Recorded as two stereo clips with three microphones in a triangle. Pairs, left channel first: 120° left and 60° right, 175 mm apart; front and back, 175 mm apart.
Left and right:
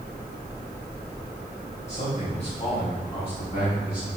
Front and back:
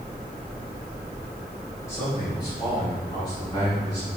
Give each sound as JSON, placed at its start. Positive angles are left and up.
{"t": 1.9, "sound": "a man speaking", "azimuth_deg": 70, "distance_m": 3.0}